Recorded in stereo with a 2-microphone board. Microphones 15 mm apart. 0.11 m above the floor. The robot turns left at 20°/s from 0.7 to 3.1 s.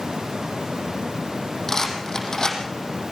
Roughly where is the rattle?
Left.